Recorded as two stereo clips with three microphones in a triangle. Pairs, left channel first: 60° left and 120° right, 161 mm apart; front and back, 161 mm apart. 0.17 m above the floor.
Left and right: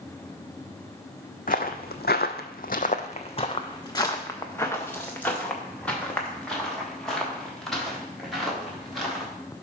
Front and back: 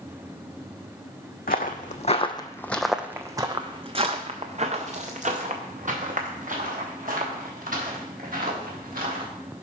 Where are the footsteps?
25° left, 0.8 m; by 9.3 s 150° left, 3.5 m.